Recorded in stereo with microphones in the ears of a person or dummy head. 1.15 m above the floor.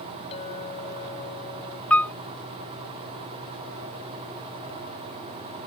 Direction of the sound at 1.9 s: 10° left (ahead or behind).